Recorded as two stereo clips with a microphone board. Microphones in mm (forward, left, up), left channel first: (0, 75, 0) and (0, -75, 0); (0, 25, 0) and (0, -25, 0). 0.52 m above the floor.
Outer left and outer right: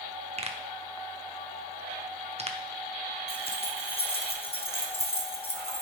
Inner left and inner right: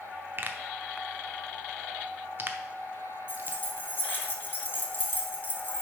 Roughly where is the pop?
Right.